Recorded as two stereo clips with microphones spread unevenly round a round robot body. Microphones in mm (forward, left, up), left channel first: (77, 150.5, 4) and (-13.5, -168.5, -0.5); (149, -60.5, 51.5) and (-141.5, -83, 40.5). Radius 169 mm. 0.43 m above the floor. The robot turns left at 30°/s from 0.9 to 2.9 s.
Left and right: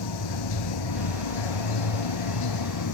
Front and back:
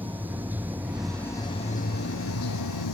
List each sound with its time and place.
0.0 s running water: 100° left; by 2.9 s 40° left